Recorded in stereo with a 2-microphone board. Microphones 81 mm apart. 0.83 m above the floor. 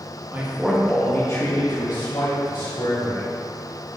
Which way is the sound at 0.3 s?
25° right (ahead or behind).